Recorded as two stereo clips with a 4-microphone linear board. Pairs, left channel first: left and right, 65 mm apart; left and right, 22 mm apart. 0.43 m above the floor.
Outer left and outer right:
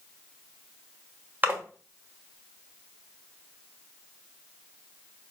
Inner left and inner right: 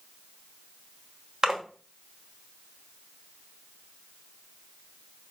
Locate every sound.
1.4 s a splash: 30° right (ahead or behind), 1.1 m